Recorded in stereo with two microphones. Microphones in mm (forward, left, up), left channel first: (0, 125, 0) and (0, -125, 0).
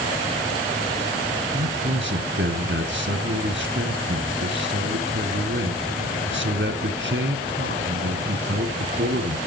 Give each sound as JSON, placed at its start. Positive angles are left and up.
{"t": 1.5, "sound": "a man speaking", "side_deg": -55, "distance_m": 2.0}